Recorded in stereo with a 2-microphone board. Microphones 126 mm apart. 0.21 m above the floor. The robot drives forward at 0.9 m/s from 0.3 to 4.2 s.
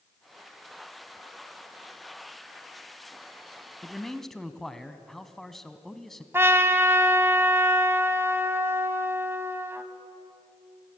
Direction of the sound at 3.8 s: 5° left (ahead or behind).